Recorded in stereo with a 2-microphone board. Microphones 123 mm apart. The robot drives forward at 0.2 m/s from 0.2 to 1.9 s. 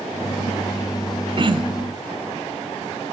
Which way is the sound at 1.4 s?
40° right (ahead or behind).